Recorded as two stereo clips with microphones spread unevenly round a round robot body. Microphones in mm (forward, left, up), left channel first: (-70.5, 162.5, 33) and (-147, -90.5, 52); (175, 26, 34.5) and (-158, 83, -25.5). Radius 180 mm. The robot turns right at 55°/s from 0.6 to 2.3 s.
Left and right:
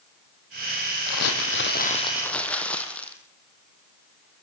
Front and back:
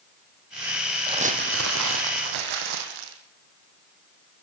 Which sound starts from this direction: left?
Crumpling, at 1.1 s.